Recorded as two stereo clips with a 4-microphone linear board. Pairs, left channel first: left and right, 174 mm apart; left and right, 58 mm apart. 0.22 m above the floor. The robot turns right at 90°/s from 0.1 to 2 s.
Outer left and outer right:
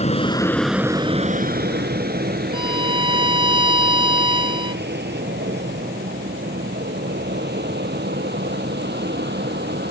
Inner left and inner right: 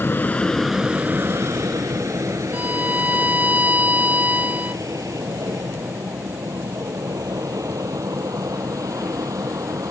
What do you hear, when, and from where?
0.0 s an aircraft: 40° left (ahead or behind); by 9.9 s 75° right (ahead or behind)
2.5 s a violin: 30° right (ahead or behind)